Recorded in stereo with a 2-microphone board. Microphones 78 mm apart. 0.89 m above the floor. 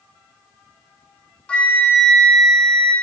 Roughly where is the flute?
Centre.